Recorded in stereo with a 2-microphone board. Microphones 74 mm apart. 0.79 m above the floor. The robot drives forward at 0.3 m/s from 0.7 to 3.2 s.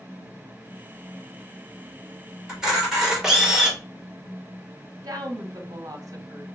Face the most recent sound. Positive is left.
turn(degrees=-55)  # may be behind; listen again after turning